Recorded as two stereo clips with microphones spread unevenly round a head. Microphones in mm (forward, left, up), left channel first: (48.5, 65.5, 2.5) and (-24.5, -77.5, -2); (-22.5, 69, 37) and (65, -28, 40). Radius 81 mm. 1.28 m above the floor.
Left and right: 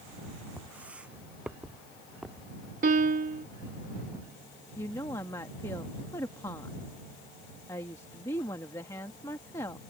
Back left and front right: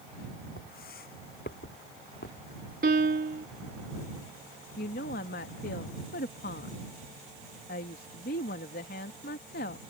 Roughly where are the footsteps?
Behind.